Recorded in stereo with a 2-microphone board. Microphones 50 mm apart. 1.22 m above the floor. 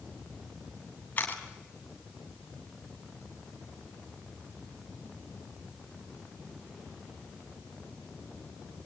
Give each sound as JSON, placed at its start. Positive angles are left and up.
{"t": 1.2, "sound": "a camera shutter", "side_deg": 35, "distance_m": 3.0}